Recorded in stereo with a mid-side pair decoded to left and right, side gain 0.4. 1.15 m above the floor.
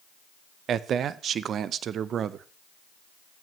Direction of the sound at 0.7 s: 65° right.